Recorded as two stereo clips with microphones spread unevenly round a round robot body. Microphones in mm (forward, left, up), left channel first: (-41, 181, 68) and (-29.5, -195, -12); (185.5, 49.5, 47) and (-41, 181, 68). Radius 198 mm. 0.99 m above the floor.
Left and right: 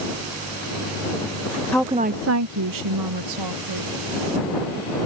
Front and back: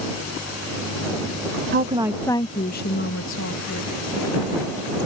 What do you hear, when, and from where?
1.7 s a woman speaking: 170° right; by 3.9 s 65° right